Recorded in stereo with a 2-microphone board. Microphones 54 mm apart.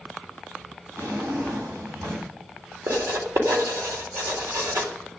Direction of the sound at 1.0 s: 75° right (ahead or behind).